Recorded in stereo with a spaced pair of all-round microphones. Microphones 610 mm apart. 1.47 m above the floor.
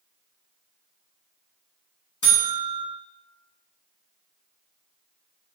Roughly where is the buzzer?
Left.